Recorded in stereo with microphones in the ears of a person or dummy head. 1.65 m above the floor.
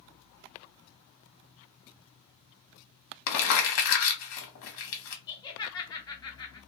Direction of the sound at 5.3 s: 20° left (ahead or behind).